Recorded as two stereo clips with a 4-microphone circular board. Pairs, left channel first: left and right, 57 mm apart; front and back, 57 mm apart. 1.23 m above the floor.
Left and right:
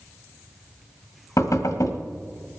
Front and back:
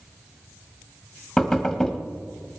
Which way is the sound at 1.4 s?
85° left.